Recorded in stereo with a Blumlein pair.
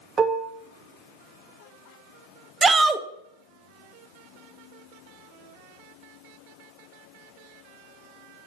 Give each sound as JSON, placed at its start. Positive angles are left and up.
{"t": 0.2, "sound": "dishes clattering", "azimuth_deg": -20, "distance_m": 0.7}
{"t": 2.6, "sound": "a shout", "azimuth_deg": -15, "distance_m": 0.7}